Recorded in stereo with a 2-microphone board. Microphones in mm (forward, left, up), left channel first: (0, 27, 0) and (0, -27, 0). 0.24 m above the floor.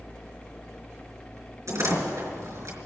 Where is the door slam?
70° right (ahead or behind), 3 m.